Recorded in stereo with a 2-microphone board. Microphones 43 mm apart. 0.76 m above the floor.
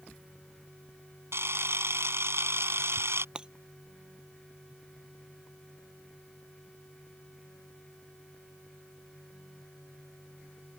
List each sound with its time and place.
1.3 s a camera shutter: 80° right
3.4 s breaking glass: 20° right (ahead or behind)